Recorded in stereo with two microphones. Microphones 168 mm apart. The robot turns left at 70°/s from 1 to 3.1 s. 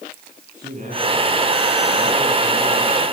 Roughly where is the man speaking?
Ahead right.